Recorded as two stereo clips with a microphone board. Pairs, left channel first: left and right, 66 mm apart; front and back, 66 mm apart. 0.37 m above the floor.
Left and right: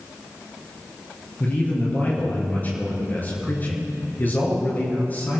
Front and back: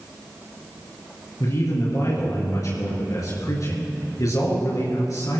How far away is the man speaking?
About 5.5 m.